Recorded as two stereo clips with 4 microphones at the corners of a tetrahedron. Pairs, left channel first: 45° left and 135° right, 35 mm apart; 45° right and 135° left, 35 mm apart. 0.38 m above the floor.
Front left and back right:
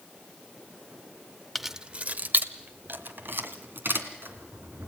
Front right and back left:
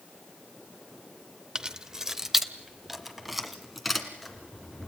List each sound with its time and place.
1.6 s keys jangling: 130° left, 0.6 m; by 4.9 s 135° right, 3.5 m